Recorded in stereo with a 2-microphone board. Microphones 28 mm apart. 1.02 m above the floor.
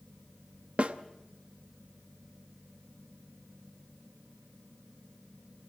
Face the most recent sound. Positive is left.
turn(degrees=-45)  # may be behind; listen again after turning